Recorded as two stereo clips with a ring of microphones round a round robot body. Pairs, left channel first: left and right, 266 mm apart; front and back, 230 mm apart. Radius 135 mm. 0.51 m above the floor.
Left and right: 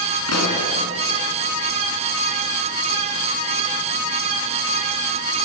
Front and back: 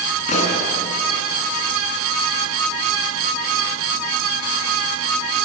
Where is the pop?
60° left, 4.5 m.